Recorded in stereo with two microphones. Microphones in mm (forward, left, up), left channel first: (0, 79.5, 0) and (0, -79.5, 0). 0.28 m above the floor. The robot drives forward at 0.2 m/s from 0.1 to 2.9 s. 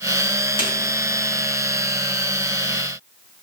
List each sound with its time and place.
0.6 s a snare drum: 30° left (ahead or behind), 3 m